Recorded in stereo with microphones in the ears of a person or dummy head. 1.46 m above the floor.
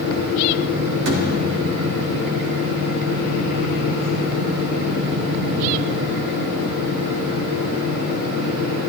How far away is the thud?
About 2.5 m.